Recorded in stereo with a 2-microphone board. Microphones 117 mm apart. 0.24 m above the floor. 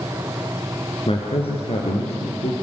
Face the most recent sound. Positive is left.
turn(degrees=65)  # may be behind; listen again after turning